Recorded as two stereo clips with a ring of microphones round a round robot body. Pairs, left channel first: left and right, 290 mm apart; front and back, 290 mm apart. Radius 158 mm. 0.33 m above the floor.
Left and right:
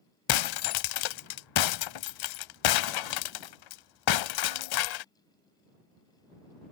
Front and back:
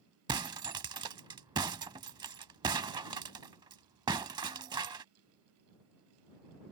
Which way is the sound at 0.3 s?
105° left.